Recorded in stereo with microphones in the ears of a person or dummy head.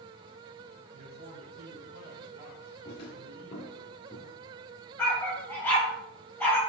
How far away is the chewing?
No chewing in this recording.